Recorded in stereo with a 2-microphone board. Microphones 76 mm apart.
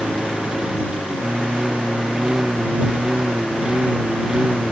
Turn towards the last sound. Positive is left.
turn(degrees=-10)  # may be behind; listen again after turning